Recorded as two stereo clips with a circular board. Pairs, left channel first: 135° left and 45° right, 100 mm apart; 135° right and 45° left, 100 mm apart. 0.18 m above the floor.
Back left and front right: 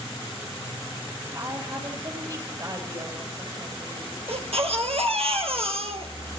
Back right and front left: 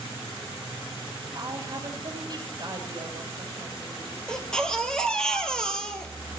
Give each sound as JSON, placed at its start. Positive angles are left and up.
{"t": 1.3, "sound": "a woman speaking", "azimuth_deg": 0, "distance_m": 4.0}
{"t": 4.3, "sound": "a baby crying", "azimuth_deg": -50, "distance_m": 1.9}